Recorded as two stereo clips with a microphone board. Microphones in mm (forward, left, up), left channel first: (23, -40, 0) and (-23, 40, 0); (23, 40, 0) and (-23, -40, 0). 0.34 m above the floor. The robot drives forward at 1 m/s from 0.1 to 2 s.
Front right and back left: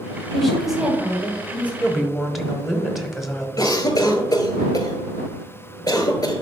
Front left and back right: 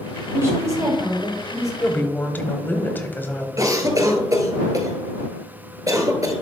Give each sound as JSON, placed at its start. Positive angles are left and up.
{"t": 0.3, "sound": "a woman speaking", "azimuth_deg": -140, "distance_m": 1.2}
{"t": 1.8, "sound": "a woman speaking", "azimuth_deg": 20, "distance_m": 0.9}
{"t": 3.6, "sound": "a cough", "azimuth_deg": -90, "distance_m": 1.5}